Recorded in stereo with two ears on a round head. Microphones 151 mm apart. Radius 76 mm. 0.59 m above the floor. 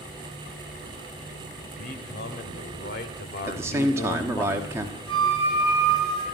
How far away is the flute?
About 5 m.